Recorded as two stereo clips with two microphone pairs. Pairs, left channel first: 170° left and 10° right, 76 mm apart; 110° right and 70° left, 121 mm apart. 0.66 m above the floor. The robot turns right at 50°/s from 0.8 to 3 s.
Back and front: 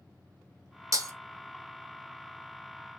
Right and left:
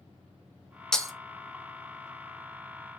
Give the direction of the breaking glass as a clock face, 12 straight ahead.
1 o'clock.